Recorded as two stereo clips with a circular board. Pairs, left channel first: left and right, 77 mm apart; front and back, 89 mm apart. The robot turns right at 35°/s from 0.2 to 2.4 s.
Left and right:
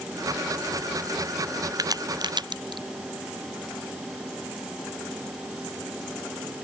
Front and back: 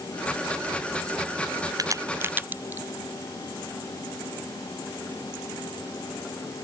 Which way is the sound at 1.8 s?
130° right.